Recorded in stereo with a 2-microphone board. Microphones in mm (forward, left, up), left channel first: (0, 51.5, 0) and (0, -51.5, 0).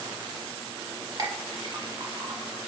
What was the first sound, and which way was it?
A clink, 40° right (ahead or behind).